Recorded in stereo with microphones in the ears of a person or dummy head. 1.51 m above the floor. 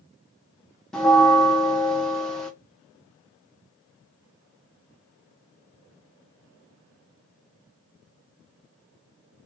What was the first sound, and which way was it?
A bell, 5° left (ahead or behind).